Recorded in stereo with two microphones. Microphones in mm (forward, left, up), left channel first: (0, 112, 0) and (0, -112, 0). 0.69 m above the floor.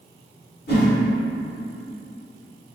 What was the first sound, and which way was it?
A whoosh, 50° left (ahead or behind).